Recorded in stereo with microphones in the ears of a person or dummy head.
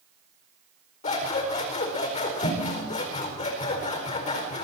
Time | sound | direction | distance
1.0 | scissors | 40° left (ahead or behind) | 4.5 m